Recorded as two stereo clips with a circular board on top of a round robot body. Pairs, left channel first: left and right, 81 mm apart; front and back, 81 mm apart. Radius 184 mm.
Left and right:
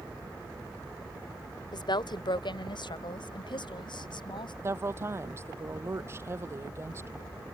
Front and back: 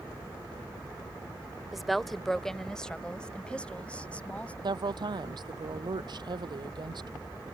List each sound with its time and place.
1.7 s a woman speaking: 95° left; by 4.5 s 75° left
4.6 s a woman speaking: 150° right